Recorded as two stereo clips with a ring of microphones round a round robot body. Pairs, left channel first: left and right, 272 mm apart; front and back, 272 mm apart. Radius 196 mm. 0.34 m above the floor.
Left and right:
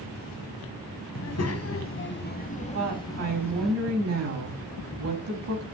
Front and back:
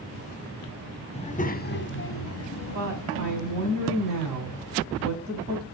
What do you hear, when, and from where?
1.1 s a child speaking: 70° left, 1.6 m; by 3.7 s straight ahead, 2 m
2.7 s a woman speaking: 120° right, 3 m